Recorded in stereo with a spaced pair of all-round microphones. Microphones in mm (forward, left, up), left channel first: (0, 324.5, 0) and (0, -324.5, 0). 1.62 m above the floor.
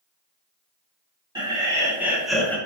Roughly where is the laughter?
Centre.